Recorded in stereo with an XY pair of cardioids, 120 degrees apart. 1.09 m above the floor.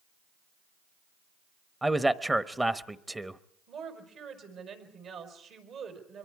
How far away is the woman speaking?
About 5 m.